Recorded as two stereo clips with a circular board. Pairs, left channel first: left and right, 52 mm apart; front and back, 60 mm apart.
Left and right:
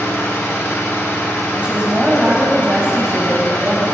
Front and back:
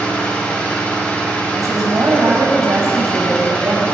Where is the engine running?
70° left, 6.5 m.